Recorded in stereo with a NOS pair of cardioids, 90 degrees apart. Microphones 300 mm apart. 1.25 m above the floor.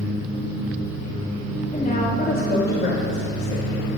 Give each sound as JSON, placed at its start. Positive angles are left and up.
{"t": 1.7, "sound": "a woman speaking", "azimuth_deg": 20, "distance_m": 2.0}